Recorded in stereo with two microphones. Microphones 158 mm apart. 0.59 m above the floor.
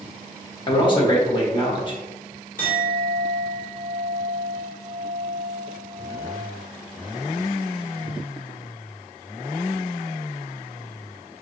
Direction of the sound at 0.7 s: 30° left (ahead or behind).